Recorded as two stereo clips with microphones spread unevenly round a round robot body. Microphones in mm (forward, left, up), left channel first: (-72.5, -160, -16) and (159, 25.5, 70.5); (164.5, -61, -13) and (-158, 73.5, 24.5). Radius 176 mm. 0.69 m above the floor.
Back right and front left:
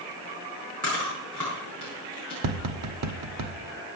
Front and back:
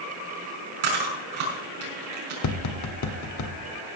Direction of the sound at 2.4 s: 15° left.